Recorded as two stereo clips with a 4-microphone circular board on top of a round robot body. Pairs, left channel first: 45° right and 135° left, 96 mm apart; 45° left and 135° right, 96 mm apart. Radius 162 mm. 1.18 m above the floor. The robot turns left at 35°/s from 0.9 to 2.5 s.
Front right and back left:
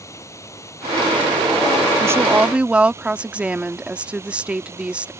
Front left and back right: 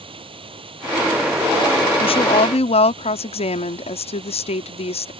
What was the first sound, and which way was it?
Running water, 105° right.